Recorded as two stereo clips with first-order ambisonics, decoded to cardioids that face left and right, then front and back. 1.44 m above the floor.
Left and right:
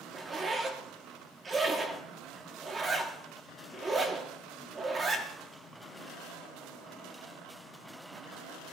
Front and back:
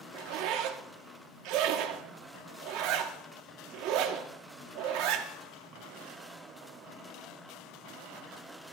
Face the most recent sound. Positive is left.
turn(degrees=-160)